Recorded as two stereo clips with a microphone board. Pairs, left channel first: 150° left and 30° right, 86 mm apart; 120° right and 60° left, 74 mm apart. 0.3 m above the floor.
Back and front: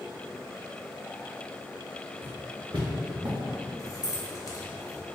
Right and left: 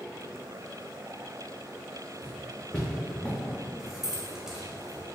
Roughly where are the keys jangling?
Behind left.